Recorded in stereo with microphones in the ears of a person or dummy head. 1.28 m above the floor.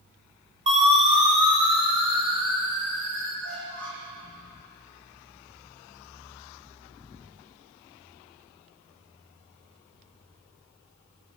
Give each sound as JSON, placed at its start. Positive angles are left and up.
{"t": 0.7, "sound": "a siren", "side_deg": -35, "distance_m": 4.5}
{"t": 3.4, "sound": "a squeak", "side_deg": -75, "distance_m": 8.5}